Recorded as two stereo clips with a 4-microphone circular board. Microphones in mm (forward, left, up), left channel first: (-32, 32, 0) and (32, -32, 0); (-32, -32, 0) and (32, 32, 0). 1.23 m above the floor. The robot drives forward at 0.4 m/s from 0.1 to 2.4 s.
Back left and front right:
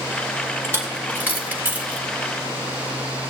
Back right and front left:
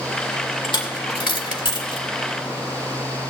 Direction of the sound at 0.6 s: 105° right.